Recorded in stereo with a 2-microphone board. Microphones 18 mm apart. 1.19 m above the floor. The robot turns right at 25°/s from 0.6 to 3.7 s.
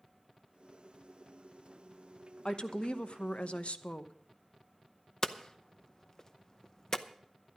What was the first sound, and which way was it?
A woman speaking, 55° left.